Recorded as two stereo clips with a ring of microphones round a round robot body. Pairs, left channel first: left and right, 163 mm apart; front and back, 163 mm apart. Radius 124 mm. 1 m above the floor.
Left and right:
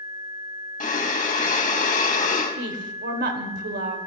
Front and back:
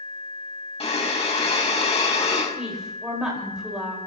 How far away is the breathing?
About 2.5 m.